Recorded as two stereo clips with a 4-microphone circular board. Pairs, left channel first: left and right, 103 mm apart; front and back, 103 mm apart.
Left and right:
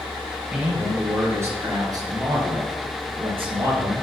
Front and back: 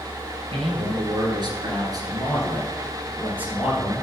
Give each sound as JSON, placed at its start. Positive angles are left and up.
{"t": 0.5, "sound": "a man speaking", "azimuth_deg": -165, "distance_m": 2.5}